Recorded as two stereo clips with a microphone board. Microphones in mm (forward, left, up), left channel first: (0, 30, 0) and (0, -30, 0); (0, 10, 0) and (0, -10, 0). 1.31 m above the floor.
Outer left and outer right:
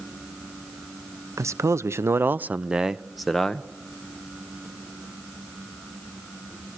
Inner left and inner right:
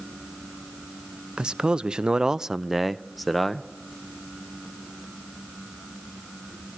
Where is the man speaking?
55° right (ahead or behind), 0.7 m; by 3.7 s 10° left (ahead or behind), 0.9 m.